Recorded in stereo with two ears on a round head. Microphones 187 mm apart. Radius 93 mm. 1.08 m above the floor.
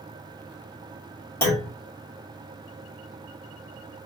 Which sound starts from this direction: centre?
A clunk, at 1.4 s.